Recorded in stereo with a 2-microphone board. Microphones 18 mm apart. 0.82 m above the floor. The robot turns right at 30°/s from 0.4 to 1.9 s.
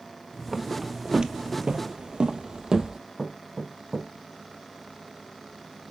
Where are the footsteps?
15° right (ahead or behind), 1.7 m; by 3.0 s 30° right (ahead or behind), 1.9 m.